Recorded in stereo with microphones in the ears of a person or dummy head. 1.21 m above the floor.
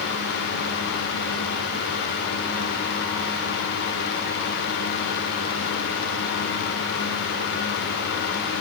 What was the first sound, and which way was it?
Only background noise.